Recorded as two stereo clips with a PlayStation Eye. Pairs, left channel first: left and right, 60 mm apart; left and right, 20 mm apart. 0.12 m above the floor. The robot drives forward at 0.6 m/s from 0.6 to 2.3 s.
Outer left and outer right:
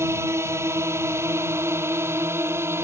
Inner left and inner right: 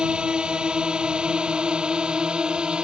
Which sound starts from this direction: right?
A drone, at 0.0 s.